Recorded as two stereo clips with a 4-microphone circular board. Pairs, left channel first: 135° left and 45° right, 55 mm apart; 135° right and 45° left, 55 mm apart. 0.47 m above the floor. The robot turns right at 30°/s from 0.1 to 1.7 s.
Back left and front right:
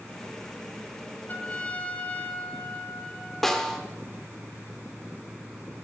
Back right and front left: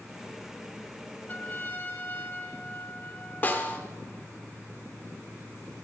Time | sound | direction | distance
1.3 | a trumpet | 175° left | 1.8 m
3.4 | a snare drum | 150° right | 1.4 m